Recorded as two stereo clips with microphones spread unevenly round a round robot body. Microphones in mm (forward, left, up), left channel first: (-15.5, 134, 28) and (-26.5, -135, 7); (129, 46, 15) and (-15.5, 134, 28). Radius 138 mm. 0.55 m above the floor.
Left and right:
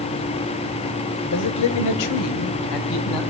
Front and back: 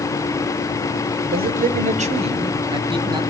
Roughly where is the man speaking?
Behind left.